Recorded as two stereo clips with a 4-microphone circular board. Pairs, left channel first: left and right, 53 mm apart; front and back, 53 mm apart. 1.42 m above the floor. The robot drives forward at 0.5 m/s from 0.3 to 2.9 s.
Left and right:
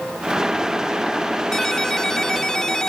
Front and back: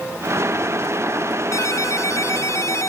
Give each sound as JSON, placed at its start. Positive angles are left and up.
{"t": 1.5, "sound": "a ringtone", "azimuth_deg": 10}